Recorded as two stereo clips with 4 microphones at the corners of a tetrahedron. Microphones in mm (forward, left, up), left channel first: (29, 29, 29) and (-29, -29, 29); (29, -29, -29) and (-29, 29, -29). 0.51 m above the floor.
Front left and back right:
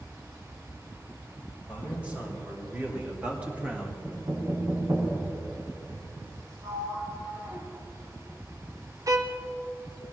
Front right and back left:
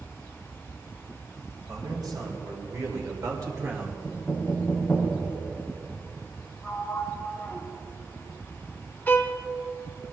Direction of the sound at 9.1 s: 105° right.